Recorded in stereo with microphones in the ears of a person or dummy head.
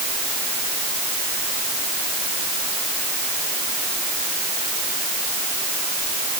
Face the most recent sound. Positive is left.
No sound to turn to.